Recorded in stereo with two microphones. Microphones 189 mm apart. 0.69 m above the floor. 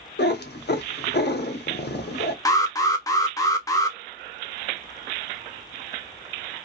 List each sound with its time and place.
0.2 s a cat meowing: 60° left (ahead or behind), 0.7 m
2.5 s an alarm: 20° left (ahead or behind), 0.6 m